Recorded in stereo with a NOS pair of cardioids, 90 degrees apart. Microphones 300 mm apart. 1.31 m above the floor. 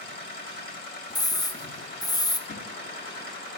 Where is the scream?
10° left, 1.2 m.